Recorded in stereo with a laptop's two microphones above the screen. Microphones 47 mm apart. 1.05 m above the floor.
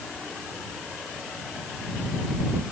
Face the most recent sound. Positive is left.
No sound to turn to.